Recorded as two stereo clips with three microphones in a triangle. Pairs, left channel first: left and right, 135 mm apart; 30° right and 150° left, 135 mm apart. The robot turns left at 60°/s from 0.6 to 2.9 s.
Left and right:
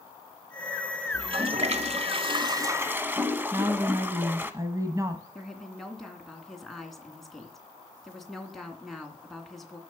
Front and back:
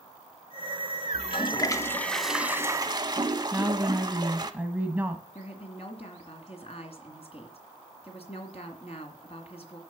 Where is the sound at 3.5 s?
140° right, 1.3 m.